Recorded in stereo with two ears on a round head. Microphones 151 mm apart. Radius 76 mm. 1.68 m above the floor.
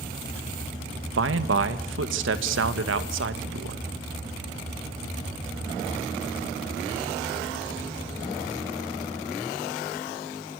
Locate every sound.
1.2 s a man speaking: 80° right, 2.5 m